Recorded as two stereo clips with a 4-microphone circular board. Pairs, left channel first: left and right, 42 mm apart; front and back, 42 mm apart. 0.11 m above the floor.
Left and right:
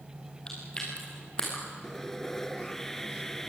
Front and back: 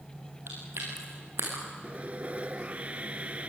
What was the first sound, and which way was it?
Chewing, 155° left.